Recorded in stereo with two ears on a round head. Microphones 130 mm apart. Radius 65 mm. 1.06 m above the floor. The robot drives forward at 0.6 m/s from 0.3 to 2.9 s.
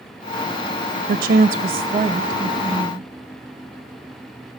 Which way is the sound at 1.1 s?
70° right (ahead or behind).